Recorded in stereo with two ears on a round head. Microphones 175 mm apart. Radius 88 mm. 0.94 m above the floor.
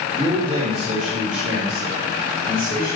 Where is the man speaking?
30° right (ahead or behind), 5 m; by 3.0 s 55° right (ahead or behind), 6.5 m.